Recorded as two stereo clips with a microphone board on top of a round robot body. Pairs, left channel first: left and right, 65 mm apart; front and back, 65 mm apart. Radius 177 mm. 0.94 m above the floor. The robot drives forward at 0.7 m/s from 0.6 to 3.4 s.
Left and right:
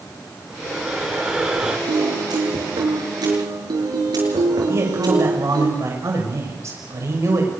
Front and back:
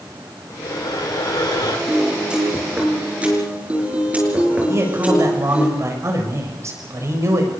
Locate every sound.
0.5 s breathing: 10° right, 5 m
1.9 s a piano: 100° right, 6.5 m; by 5.7 s 110° right, 6.5 m
4.7 s a man speaking: 135° right, 6.5 m